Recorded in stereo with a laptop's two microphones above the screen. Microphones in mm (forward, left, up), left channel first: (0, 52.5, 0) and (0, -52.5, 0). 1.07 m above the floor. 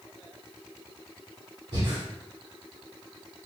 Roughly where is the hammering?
I don't hear hammering.